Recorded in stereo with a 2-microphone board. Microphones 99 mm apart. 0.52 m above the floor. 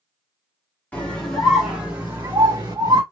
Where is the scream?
15° left (ahead or behind), 1.2 m; by 3.0 s 40° right (ahead or behind), 1.6 m.